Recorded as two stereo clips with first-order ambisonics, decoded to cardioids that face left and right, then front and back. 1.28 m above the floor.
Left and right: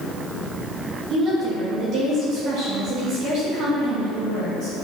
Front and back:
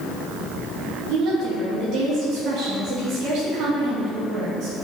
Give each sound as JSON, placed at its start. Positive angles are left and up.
{"t": 1.1, "sound": "a woman speaking", "azimuth_deg": -140, "distance_m": 2.5}